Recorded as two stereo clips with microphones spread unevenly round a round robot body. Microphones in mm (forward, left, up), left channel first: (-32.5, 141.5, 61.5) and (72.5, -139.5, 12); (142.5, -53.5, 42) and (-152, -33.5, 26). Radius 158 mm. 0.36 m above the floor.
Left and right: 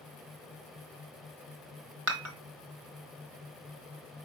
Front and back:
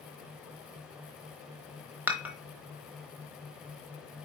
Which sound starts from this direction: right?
Dishes clattering, at 2.1 s.